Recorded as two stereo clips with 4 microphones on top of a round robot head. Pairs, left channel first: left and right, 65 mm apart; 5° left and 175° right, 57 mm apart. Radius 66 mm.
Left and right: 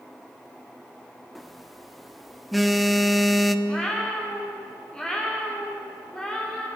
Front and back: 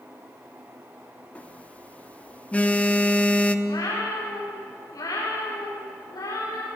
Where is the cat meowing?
15° left, 7.5 m.